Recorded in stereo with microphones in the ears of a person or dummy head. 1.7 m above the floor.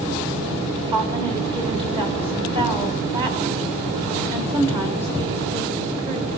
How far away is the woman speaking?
About 1.6 m.